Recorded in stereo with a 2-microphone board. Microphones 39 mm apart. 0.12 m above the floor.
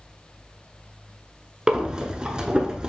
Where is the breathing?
25° right (ahead or behind), 0.7 m.